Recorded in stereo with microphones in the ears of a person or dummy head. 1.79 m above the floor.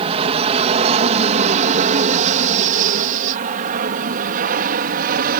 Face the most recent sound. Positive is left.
turn(degrees=-45)  # may be behind; listen again after turning